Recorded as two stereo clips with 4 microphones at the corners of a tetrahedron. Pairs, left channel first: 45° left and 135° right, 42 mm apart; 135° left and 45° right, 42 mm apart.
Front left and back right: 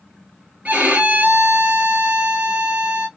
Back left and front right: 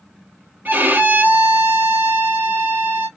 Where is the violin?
80° right, 1.9 m.